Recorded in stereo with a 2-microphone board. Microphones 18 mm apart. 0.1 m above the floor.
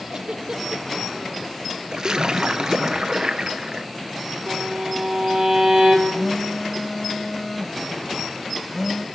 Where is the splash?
45° right (ahead or behind), 0.5 m.